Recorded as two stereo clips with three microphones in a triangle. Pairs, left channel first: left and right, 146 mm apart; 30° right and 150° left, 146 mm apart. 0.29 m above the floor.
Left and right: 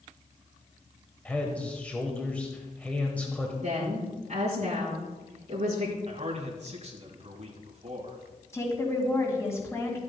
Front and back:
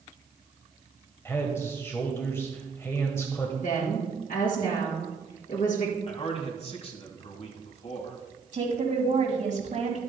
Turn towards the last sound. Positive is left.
turn(degrees=155)